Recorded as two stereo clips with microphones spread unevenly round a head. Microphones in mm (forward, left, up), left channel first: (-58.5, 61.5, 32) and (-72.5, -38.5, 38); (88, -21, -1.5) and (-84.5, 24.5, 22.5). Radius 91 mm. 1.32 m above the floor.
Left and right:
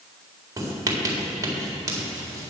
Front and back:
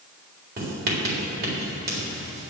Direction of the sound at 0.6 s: 155° right.